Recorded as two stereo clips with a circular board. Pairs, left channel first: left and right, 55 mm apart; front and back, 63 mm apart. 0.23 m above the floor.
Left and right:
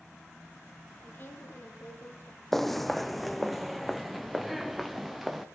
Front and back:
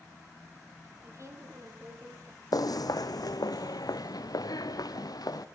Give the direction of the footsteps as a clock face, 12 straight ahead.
12 o'clock.